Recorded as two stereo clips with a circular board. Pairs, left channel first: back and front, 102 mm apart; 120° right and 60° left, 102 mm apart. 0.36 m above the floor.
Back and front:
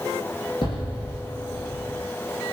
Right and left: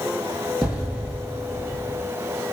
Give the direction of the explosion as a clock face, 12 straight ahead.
7 o'clock.